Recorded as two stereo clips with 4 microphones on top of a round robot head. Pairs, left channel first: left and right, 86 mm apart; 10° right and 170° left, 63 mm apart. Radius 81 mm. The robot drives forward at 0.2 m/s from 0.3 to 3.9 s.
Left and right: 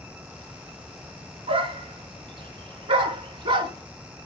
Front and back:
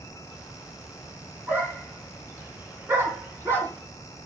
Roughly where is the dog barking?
Behind right.